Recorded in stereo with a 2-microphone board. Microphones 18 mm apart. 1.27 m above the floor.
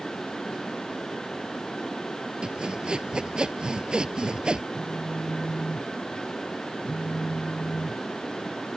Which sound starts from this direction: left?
A phone buzzing, at 4.7 s.